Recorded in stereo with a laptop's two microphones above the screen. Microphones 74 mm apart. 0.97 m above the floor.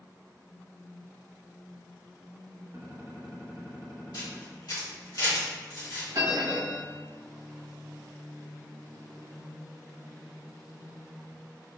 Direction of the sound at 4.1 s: 75° left (ahead or behind).